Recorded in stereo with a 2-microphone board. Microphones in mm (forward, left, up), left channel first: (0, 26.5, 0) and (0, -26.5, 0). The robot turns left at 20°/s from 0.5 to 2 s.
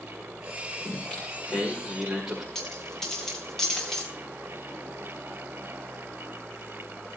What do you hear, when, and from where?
0.8 s singing: 20° left (ahead or behind), 9.5 m; by 2.5 s centre (ahead or behind), 9.5 m
2.5 s a dropped coin: 10° left (ahead or behind), 6 m